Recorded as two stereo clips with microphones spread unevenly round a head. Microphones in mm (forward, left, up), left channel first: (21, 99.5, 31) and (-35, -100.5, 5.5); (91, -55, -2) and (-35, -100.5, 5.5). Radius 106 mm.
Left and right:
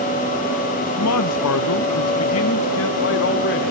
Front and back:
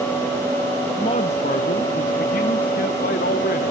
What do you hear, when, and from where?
1.0 s a man speaking: 80° left, 1.0 m; by 3.7 s 35° left, 2 m